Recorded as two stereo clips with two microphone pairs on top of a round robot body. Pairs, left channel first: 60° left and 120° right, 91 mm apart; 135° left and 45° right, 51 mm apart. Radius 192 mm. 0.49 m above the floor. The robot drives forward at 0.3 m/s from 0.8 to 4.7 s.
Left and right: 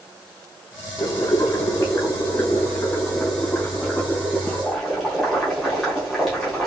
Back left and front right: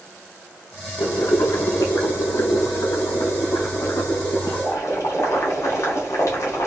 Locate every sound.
1.0 s boiling: 105° left, 0.9 m; by 6.7 s 150° left, 1.5 m